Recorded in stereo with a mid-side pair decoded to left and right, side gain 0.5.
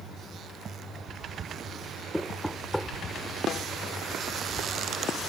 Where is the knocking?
5° left.